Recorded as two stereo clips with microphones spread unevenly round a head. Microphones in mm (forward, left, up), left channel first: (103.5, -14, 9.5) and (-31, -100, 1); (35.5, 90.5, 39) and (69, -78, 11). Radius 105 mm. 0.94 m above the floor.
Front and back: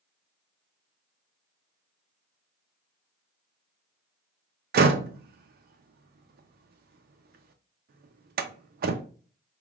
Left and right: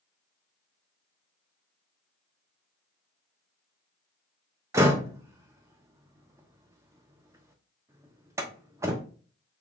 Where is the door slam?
150° right, 0.5 m.